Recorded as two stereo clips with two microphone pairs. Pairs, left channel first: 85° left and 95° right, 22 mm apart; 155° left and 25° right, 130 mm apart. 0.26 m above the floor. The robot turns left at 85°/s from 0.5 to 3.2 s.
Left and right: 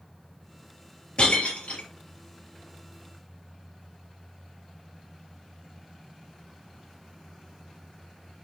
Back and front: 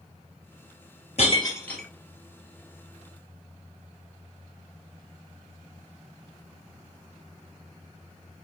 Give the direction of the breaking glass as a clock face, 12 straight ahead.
8 o'clock.